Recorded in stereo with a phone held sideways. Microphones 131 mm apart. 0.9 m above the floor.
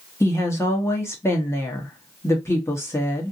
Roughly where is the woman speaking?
Left.